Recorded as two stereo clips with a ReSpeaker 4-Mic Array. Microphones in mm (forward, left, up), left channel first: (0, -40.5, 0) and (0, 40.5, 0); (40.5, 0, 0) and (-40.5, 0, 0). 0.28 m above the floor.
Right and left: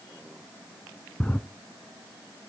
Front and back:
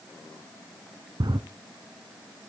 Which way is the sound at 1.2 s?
160° right.